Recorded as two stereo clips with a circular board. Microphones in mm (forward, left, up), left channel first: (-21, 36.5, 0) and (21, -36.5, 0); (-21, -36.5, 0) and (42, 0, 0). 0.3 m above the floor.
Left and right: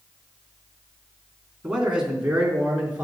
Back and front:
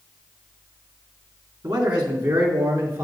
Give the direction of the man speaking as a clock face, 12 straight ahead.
11 o'clock.